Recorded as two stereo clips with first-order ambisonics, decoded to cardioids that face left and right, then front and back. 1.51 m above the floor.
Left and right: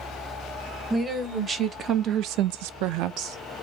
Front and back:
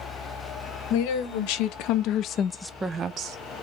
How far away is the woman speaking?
About 1.5 m.